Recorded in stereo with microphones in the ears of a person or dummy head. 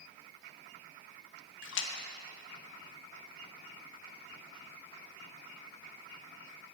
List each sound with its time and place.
1.6 s a splash: 75° left (ahead or behind), 0.9 m